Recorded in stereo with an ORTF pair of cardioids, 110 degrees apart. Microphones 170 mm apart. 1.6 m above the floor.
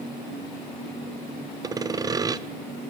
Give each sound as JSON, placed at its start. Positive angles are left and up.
{"t": 1.6, "sound": "sawing", "azimuth_deg": -20, "distance_m": 0.6}